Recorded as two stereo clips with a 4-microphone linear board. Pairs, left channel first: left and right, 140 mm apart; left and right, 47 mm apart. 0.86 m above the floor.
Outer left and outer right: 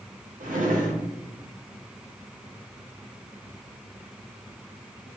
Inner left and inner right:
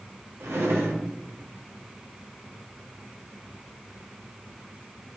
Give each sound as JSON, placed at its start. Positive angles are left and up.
{"t": 0.4, "sound": "a drawer", "side_deg": -70, "distance_m": 0.7}